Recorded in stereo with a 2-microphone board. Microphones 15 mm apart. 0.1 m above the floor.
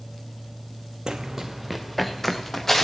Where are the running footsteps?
50° right (ahead or behind), 0.5 m; by 2.9 s 20° left (ahead or behind), 1.7 m.